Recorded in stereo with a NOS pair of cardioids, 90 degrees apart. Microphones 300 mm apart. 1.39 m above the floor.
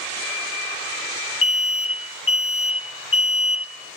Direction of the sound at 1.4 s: 45° left.